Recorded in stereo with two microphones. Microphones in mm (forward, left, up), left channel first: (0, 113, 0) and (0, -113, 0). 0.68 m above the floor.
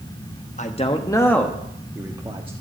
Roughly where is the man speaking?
Left.